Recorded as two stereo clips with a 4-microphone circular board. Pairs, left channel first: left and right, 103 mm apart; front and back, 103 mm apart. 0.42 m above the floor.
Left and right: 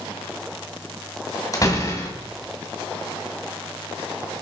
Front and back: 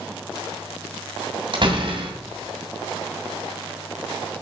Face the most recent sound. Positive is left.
turn(degrees=145)